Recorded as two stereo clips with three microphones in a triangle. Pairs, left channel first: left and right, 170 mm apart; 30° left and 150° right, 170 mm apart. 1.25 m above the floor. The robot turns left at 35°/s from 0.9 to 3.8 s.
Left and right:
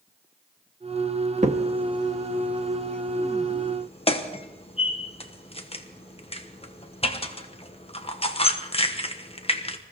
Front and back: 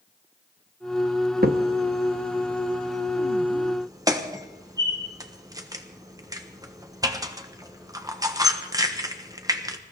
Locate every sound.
1.4 s a crack: 135° right, 1.2 m; by 9.8 s 145° left, 1.2 m